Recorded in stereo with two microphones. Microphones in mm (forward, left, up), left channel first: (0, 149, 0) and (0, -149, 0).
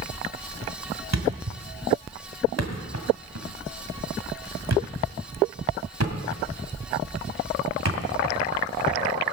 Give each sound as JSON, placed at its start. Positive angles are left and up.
{"t": 1.1, "sound": "a thud", "side_deg": -60, "distance_m": 1.8}